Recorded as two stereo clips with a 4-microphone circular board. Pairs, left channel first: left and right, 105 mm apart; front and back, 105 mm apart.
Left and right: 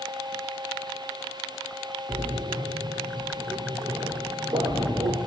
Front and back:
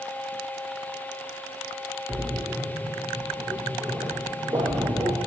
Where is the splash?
130° right, 0.5 m.